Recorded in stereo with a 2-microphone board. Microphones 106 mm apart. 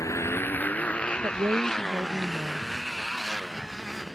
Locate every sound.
0.0 s a motorcycle: 30° left (ahead or behind); by 4.2 s 5° right (ahead or behind)
1.2 s a woman speaking: 30° right (ahead or behind)